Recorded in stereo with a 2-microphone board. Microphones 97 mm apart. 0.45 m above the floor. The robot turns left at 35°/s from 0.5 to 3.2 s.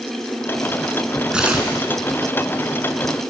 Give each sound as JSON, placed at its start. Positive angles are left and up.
{"t": 1.3, "sound": "tearing paper", "side_deg": -10, "distance_m": 3.0}